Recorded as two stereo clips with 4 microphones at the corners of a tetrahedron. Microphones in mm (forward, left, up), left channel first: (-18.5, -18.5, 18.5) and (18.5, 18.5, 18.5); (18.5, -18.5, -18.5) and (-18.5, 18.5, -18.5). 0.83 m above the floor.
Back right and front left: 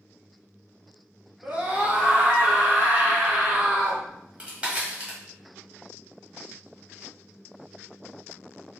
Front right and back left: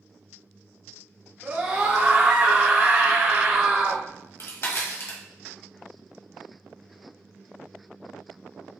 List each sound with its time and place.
1.4 s a scream: 95° left, 0.9 m
4.0 s a crack: 20° right, 1.5 m